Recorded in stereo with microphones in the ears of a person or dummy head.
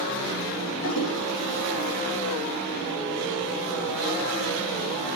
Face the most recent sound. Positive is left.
turn(degrees=75)  # may be behind; listen again after turning